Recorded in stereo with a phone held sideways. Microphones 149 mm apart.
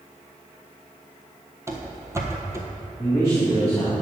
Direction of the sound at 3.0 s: 20° left (ahead or behind).